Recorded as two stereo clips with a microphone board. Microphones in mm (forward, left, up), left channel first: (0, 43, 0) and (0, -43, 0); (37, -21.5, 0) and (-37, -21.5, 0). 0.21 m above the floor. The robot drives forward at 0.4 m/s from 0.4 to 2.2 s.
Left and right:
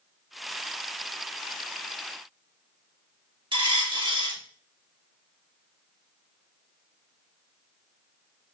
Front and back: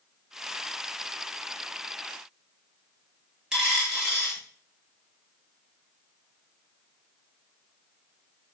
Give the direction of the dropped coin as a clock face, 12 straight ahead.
3 o'clock.